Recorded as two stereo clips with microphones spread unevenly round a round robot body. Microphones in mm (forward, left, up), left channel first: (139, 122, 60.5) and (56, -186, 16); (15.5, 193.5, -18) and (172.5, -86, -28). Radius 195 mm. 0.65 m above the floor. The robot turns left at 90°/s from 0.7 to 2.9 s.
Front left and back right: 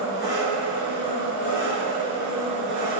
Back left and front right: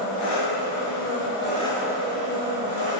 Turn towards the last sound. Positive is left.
turn(degrees=-70)